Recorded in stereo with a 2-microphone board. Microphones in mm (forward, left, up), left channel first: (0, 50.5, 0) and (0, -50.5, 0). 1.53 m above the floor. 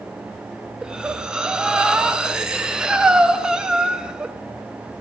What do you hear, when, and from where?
0.8 s breathing: 10° right (ahead or behind), 0.9 m